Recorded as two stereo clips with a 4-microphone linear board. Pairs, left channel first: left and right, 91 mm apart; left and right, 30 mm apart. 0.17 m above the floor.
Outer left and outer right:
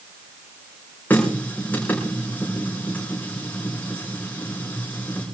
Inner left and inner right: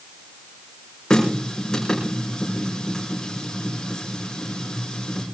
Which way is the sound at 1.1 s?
20° left (ahead or behind).